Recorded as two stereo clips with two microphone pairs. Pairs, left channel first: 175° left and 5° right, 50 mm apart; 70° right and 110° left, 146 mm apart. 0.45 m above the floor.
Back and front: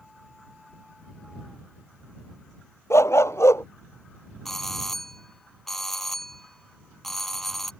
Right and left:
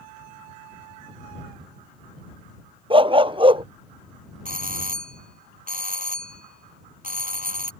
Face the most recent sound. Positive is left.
turn(degrees=95)